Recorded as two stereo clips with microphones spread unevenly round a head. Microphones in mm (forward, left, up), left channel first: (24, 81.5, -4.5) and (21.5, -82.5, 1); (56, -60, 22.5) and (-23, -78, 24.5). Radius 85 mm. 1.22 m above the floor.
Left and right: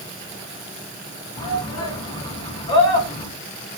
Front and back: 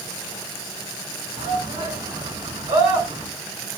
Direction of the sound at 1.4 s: 155° left.